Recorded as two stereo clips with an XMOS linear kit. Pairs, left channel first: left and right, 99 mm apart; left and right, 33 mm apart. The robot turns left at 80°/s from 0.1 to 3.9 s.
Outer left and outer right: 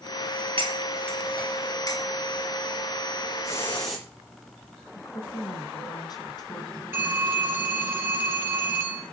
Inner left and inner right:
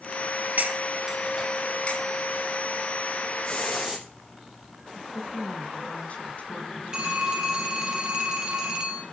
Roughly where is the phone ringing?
Right.